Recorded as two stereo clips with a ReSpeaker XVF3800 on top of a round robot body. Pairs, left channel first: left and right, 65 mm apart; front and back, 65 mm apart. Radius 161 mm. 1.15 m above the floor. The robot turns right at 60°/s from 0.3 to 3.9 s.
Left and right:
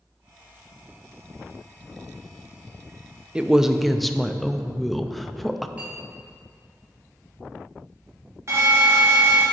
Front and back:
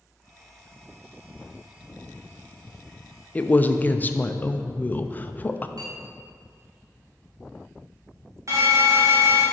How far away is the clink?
About 1.1 m.